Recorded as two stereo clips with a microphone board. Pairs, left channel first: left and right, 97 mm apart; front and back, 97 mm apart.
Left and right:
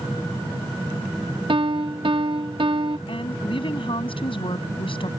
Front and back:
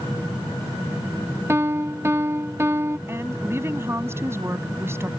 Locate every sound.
1.5 s a piano: 120° right
3.1 s a woman speaking: 115° left